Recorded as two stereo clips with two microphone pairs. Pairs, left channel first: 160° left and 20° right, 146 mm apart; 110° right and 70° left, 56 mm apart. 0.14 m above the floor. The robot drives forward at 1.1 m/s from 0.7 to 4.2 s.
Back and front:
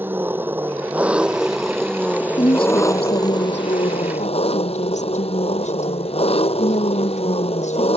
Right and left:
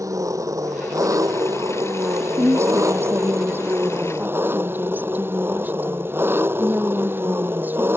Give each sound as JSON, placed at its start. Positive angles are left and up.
{"t": 0.0, "sound": "an engine running", "azimuth_deg": 55}
{"t": 2.4, "sound": "a woman speaking", "azimuth_deg": 105}